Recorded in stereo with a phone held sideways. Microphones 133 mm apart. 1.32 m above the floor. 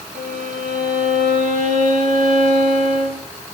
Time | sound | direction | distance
0.1 | a violin | 80° right | 3.5 m